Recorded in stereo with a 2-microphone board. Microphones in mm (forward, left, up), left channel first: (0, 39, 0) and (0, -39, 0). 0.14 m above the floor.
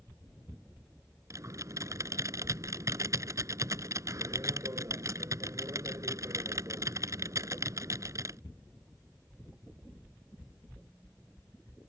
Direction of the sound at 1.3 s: 45° right (ahead or behind).